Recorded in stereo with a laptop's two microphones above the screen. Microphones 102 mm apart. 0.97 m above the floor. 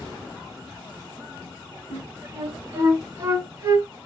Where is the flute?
30° right (ahead or behind), 1.1 m.